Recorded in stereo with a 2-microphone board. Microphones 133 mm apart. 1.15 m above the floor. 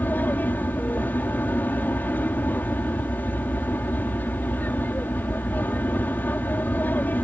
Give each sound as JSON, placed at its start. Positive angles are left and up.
{"t": 0.0, "sound": "an aircraft", "side_deg": 15}